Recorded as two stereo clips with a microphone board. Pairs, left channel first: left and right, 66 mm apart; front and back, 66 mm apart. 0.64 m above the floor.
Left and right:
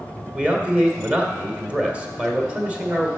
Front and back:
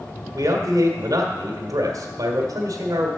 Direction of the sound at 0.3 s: 165° right.